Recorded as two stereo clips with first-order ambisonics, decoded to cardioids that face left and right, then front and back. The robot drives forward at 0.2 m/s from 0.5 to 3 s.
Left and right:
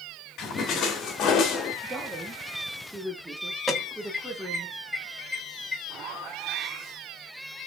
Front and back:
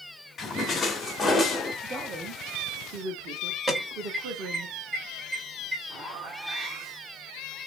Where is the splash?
65° left, 1.1 m; by 1.7 s 85° left, 1.1 m.